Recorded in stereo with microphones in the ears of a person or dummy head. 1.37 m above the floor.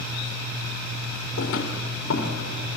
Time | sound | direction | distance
1.4 | footsteps | 70° left (ahead or behind) | 4 m